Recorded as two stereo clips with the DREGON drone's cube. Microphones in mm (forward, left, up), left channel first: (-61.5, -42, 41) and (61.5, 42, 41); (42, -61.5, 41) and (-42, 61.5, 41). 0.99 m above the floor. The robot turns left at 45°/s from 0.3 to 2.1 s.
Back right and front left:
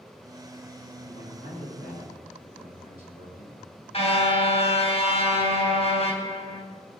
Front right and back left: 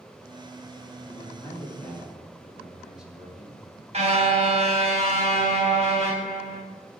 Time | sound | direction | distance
1.1 | a man speaking | 100° right | 8.5 m
3.9 | a car horn | 165° left | 3.5 m